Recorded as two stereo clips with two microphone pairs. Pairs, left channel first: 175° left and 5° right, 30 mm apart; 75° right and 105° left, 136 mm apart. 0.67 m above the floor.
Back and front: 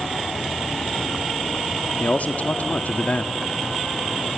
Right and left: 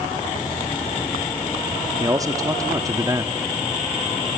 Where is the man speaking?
165° left, 1.2 m.